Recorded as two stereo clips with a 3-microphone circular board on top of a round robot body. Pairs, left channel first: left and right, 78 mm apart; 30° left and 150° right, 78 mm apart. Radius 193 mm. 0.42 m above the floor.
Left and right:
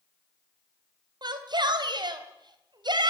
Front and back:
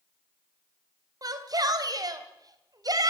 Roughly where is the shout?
Behind right.